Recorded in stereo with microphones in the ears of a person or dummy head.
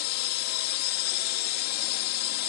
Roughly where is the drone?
Left.